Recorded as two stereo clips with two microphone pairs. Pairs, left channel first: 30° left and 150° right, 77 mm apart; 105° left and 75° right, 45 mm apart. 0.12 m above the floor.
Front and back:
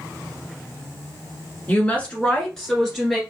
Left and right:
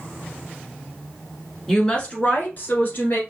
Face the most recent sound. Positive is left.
turn(degrees=120)